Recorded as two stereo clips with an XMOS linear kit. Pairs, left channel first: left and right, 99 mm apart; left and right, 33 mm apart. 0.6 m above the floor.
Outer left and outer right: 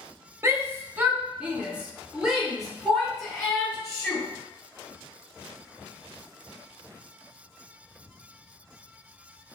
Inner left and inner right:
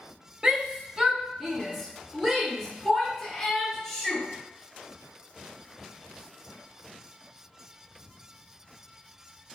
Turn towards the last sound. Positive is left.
turn(degrees=0)  # may be behind; listen again after turning